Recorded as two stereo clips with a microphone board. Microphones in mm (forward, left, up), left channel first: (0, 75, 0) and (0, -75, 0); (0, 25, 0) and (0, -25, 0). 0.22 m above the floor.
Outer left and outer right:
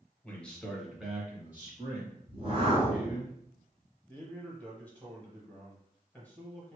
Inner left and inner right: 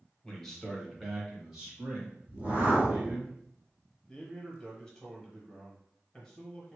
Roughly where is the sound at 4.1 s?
Centre.